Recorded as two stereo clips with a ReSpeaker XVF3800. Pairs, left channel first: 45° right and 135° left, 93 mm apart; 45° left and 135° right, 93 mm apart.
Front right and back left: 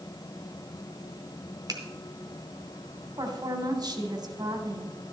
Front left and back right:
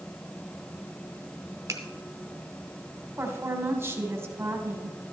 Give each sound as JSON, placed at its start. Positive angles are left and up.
{"t": 1.7, "sound": "a finger snap", "azimuth_deg": 175, "distance_m": 1.6}
{"t": 3.2, "sound": "a woman speaking", "azimuth_deg": 165, "distance_m": 1.6}